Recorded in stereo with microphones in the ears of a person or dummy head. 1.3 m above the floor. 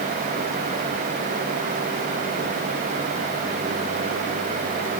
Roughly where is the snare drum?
No snare drum in this recording.